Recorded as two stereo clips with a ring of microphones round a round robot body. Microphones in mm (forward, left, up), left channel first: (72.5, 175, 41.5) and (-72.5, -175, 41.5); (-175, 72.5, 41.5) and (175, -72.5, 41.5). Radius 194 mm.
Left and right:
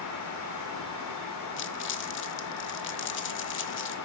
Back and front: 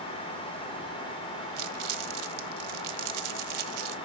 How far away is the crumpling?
About 1.2 m.